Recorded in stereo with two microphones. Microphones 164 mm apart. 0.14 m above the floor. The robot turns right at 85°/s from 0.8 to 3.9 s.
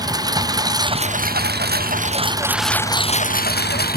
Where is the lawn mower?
155° right; by 4.0 s 105° left.